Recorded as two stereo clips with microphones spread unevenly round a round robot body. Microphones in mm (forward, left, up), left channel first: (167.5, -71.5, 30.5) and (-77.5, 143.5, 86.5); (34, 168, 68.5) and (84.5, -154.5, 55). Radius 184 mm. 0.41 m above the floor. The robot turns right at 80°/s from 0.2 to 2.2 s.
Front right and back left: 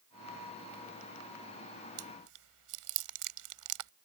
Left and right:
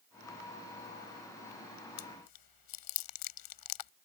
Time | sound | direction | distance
2.0 | chewing | 95° left | ?